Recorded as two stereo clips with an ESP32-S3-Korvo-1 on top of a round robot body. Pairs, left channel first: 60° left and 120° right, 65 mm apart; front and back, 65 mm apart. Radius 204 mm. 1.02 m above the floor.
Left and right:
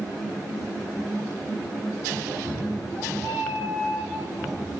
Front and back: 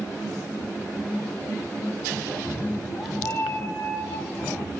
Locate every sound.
2.3 s a cat meowing: 65° right, 2.5 m; by 4.7 s 25° right, 2 m